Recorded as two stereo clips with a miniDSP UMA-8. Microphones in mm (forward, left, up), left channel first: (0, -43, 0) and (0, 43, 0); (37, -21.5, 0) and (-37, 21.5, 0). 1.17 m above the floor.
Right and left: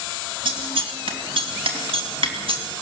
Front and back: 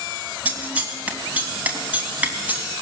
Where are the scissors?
75° left, 3 m.